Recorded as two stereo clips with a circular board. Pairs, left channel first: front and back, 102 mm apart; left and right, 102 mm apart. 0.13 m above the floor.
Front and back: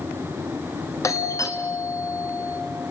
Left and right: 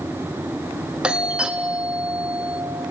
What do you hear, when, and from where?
1.0 s a doorbell: 15° right, 1.6 m